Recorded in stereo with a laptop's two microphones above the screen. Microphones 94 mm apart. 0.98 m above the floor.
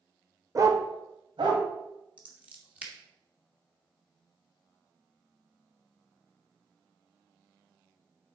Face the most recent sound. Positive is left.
turn(degrees=-15)  # may be behind; listen again after turning